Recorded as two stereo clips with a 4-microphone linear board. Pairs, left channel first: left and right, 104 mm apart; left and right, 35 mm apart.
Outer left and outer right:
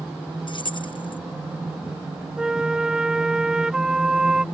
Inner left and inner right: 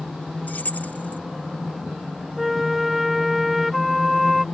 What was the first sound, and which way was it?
Keys jangling, 50° left (ahead or behind).